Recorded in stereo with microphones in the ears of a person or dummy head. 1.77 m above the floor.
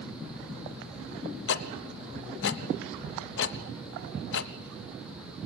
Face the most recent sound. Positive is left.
turn(degrees=75)  # may be behind; listen again after turning